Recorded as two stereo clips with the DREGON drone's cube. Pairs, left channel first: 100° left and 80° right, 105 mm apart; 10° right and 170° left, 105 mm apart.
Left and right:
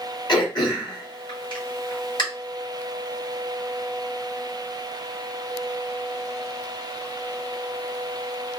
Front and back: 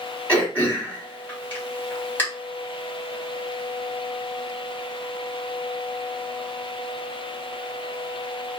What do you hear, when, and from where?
0.3 s throat clearing: 60° left, 2 m